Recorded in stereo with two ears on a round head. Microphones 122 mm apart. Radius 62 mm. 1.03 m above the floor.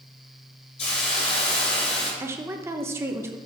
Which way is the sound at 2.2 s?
20° right (ahead or behind).